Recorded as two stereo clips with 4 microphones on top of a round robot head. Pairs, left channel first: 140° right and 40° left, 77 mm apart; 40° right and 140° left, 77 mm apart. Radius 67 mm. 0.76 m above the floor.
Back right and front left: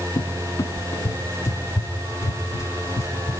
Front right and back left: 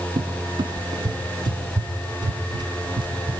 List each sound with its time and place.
0.2 s a cupboard door: 165° left, 0.6 m